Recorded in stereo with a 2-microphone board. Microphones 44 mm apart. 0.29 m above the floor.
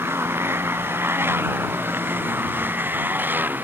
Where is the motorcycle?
65° right (ahead or behind); by 3.6 s 45° right (ahead or behind).